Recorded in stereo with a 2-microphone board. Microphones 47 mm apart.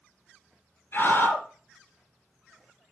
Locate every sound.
0.9 s a scream: 45° left (ahead or behind), 2.5 m